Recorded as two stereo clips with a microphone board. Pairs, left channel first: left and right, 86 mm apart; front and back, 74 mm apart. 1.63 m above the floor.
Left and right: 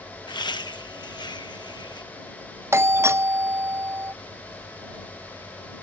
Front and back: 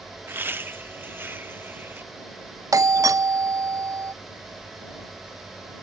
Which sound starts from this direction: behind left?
Laughter, at 0.3 s.